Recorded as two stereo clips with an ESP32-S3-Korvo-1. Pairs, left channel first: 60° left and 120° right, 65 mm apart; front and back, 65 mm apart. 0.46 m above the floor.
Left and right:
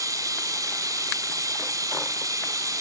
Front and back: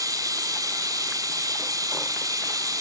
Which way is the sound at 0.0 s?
155° right.